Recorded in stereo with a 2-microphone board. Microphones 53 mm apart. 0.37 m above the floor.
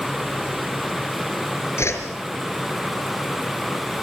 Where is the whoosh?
60° left (ahead or behind), 4.5 m.